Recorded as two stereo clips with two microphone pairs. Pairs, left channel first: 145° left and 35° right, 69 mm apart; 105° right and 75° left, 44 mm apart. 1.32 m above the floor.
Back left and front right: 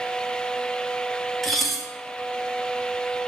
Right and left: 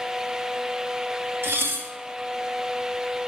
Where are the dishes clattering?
55° left, 1.4 m.